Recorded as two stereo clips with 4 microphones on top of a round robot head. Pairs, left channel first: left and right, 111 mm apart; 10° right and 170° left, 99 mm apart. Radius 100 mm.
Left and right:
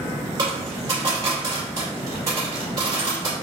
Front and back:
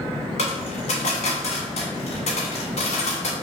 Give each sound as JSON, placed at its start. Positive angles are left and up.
{"t": 0.4, "sound": "a dropped coin", "azimuth_deg": -25, "distance_m": 0.9}